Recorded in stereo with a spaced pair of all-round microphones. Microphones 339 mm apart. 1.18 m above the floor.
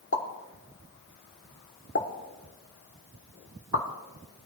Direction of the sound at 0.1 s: 40° left (ahead or behind).